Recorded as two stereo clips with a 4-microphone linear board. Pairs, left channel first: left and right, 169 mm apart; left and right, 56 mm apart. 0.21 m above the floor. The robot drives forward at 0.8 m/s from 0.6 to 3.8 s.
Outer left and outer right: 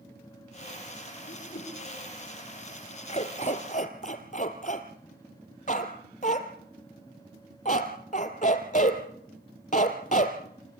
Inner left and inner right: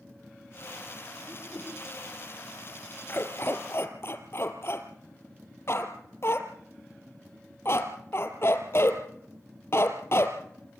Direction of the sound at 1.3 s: 70° left (ahead or behind).